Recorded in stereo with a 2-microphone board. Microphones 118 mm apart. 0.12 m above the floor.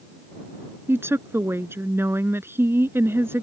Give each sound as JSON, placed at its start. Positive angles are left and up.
{"t": 0.9, "sound": "a woman speaking", "side_deg": -20}